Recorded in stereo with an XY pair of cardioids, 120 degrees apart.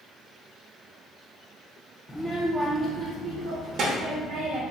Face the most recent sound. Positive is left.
turn(degrees=-80)